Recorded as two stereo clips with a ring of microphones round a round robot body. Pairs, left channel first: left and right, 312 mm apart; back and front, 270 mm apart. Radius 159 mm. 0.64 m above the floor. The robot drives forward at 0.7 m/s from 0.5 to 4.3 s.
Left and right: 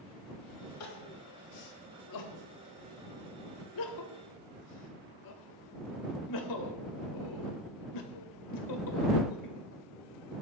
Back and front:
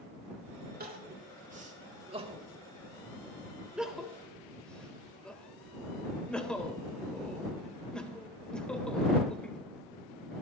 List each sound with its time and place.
0.8 s crying: 55° left, 4 m; by 9.6 s 95° left, 3.5 m